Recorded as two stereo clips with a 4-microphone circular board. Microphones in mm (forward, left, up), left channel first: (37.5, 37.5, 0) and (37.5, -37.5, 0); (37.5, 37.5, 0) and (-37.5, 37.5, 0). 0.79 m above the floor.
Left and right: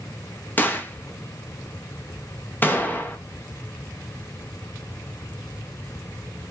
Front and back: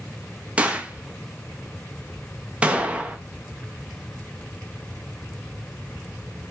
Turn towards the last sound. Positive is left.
turn(degrees=120)